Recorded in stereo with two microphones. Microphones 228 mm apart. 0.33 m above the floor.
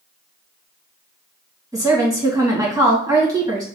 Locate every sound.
1.7 s a woman speaking: 15° right (ahead or behind), 1.9 m